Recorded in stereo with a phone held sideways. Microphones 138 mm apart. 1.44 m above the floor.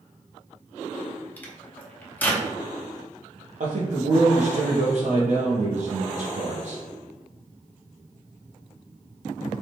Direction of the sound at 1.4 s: 15° left (ahead or behind).